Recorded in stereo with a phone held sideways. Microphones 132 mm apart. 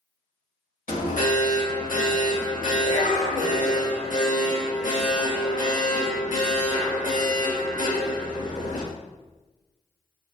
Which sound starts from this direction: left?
An alarm, at 0.9 s.